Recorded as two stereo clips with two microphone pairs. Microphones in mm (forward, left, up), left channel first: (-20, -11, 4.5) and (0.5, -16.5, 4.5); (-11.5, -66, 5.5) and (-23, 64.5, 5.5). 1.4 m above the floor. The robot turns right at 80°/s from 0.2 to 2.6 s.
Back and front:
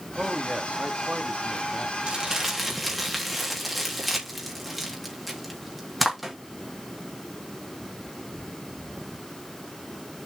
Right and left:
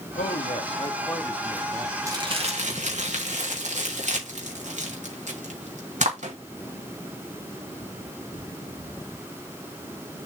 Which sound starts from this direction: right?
A man speaking, at 0.1 s.